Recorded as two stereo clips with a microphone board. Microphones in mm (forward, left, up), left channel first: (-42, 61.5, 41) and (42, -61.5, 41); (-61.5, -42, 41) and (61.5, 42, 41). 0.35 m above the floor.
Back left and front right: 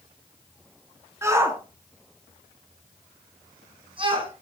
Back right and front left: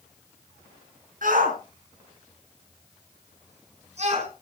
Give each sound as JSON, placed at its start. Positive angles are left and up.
{"t": 1.2, "sound": "a shout", "azimuth_deg": 15, "distance_m": 5.5}